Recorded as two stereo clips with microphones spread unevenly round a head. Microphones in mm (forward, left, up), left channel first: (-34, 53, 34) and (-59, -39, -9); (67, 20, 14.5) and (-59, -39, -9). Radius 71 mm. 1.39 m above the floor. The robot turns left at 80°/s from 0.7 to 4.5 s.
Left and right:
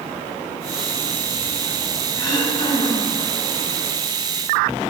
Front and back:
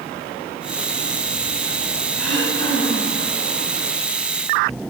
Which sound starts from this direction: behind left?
Throat clearing, at 2.2 s.